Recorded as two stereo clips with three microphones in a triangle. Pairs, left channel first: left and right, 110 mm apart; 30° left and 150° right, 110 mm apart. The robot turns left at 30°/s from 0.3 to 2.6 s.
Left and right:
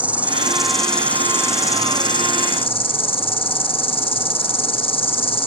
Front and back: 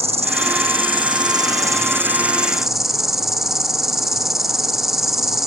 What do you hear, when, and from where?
0.0 s an insect: 170° right, 1.3 m; by 5.5 s 125° left, 1.3 m